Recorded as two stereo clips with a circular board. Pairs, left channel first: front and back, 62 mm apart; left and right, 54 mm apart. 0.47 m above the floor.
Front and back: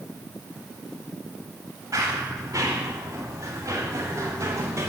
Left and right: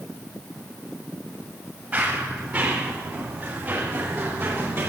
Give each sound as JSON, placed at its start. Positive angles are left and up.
{"t": 1.9, "sound": "running footsteps", "azimuth_deg": -150, "distance_m": 7.0}